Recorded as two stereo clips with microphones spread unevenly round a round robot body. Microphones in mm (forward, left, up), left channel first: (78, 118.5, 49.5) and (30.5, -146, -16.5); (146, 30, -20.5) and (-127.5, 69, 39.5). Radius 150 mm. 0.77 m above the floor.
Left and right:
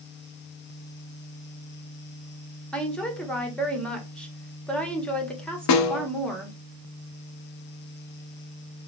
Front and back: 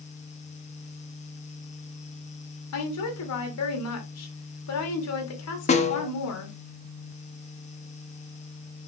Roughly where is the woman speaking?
Ahead.